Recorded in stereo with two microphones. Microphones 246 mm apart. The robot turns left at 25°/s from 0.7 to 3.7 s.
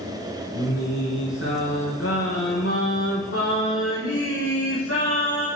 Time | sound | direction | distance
0.6 | singing | 140° left | 2.5 m